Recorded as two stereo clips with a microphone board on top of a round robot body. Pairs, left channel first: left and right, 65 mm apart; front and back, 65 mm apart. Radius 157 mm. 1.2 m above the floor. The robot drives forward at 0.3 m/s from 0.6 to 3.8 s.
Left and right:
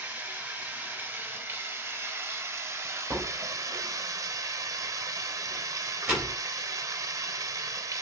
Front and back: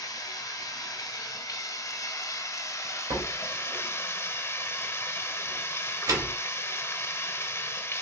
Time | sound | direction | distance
0.0 | running water | 25° right | 1.7 m
3.1 | a door slam | 160° right | 2.5 m